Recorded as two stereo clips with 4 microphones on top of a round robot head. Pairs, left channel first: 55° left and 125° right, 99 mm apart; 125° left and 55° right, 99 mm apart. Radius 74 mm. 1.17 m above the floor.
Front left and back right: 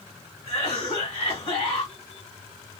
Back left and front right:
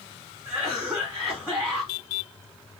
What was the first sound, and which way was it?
A cough, 35° left.